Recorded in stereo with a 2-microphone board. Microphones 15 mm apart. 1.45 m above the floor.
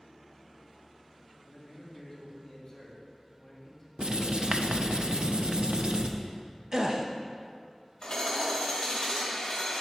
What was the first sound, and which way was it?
A man speaking, 15° left (ahead or behind).